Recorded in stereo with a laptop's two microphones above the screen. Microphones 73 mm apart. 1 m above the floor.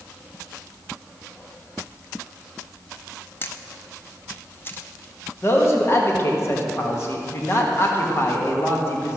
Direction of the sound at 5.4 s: 35° left (ahead or behind).